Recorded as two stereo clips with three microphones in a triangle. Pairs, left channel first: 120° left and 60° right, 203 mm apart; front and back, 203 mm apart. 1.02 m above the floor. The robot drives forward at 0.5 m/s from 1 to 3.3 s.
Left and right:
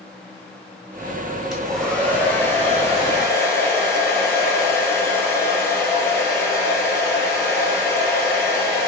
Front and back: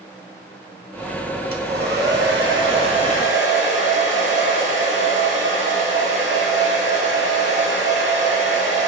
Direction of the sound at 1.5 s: 150° right.